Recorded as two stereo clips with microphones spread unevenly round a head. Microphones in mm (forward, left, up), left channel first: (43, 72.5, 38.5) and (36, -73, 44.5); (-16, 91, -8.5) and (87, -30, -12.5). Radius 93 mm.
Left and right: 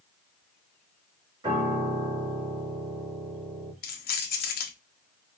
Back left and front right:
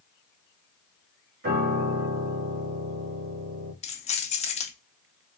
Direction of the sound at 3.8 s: 80° left.